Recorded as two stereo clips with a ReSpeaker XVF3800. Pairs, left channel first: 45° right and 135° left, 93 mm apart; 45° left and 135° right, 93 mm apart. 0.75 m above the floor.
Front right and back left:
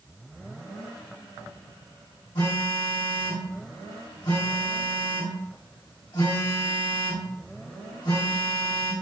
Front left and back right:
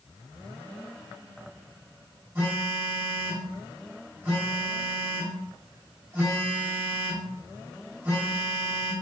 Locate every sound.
2.4 s a phone buzzing: 75° right, 1.5 m